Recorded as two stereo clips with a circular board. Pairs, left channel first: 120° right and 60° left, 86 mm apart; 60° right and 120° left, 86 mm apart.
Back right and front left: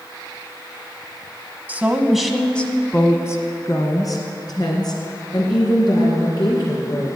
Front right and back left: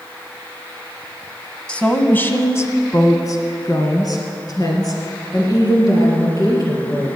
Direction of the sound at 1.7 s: 5° left.